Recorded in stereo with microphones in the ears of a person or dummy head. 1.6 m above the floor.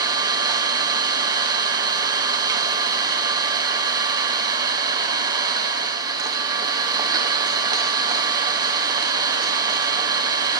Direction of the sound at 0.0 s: 15° right (ahead or behind).